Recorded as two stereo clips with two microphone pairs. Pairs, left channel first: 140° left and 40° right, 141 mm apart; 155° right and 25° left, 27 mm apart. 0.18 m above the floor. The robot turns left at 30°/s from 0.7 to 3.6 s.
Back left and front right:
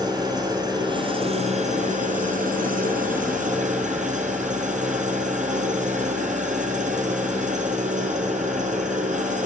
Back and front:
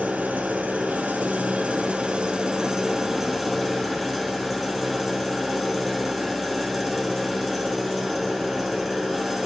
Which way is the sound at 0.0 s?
20° left.